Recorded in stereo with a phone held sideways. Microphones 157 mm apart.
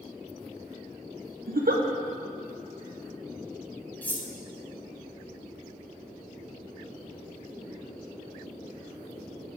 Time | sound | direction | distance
1.5 | a giggle | 70° right (ahead or behind) | 0.7 m
4.0 | cutlery clinking | 10° left (ahead or behind) | 0.8 m